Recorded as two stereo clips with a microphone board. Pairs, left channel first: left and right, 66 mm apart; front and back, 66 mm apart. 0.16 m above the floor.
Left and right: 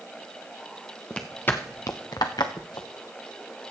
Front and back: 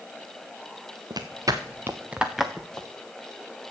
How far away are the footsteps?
About 1.7 m.